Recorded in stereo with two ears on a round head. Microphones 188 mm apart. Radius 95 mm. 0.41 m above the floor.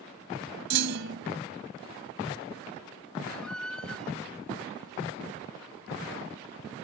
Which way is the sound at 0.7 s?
60° right (ahead or behind).